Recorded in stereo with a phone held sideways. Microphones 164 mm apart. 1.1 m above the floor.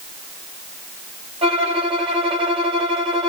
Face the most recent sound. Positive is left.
turn(degrees=-35)  # may be behind; listen again after turning